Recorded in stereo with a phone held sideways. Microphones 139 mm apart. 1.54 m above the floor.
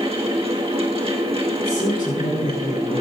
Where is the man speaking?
80° left, 4 m.